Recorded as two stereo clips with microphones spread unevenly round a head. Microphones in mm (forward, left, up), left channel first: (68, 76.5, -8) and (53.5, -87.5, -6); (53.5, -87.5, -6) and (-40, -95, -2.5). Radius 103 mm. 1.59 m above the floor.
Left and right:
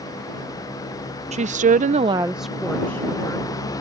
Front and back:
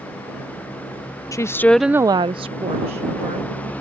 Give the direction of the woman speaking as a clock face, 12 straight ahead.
2 o'clock.